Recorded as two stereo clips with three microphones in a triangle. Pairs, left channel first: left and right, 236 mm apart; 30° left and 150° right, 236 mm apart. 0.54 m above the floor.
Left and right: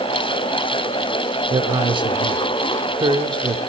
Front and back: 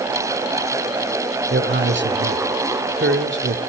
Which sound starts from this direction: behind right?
A man speaking, at 1.5 s.